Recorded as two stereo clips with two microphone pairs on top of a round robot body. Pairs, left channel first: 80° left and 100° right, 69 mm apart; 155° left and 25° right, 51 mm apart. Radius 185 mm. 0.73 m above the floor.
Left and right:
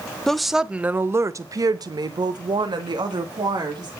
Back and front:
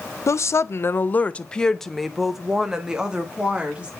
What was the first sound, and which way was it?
A woman speaking, 155° left.